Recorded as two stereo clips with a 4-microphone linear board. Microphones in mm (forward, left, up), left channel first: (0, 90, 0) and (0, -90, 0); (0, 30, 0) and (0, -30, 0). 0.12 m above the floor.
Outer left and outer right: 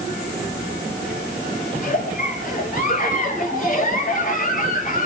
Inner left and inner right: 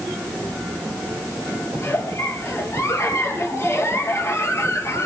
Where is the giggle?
50° left (ahead or behind), 3 m.